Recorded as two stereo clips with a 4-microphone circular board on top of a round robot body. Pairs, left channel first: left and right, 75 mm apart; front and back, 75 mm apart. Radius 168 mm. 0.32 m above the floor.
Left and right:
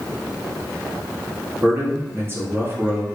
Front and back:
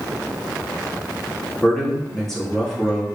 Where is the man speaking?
80° right, 1.6 m.